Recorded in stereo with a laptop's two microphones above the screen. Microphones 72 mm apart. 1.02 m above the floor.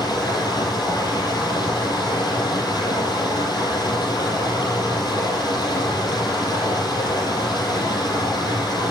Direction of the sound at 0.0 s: 80° left.